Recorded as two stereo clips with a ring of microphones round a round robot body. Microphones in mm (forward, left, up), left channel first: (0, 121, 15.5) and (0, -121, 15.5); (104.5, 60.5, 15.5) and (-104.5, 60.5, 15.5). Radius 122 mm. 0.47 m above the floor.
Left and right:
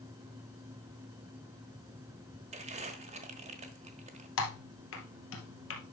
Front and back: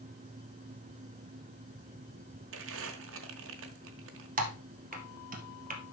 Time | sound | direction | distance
2.5 | crumpling | 155° right | 1.1 m
4.4 | typing on a keyboard | 130° left | 2 m